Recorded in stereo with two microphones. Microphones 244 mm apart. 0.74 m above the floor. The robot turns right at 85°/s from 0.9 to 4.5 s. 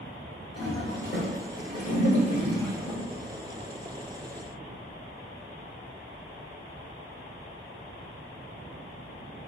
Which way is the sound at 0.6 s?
20° left (ahead or behind).